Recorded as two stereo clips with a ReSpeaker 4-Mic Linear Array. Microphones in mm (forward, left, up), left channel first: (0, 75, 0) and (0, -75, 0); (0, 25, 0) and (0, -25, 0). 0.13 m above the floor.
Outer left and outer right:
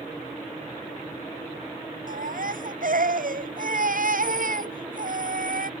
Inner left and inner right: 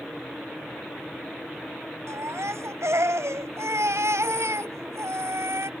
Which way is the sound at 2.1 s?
70° right (ahead or behind).